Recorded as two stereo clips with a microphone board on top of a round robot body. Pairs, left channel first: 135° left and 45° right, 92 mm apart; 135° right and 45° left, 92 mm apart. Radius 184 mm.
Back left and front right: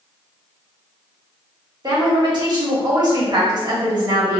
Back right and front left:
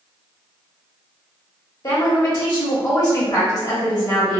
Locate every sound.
1.8 s a woman speaking: 85° right, 1.5 m